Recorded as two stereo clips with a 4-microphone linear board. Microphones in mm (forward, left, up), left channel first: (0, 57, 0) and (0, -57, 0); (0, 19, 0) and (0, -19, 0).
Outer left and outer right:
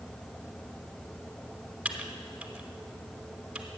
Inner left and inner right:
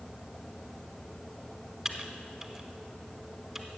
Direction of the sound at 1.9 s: 10° right (ahead or behind).